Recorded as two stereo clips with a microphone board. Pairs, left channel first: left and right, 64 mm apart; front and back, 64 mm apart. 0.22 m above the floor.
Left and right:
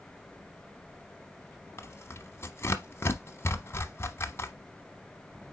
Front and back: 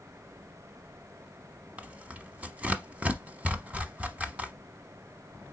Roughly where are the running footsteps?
I don't hear running footsteps.